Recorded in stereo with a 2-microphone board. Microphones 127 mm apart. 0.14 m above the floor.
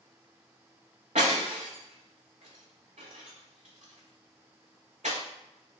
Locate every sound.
1.1 s breaking glass: 80° right, 1.0 m